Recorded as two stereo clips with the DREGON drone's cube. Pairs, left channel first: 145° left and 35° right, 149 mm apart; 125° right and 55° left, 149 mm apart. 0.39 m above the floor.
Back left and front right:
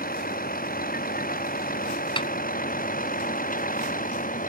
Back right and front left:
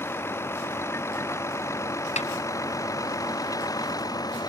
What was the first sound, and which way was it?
A vehicle, 160° left.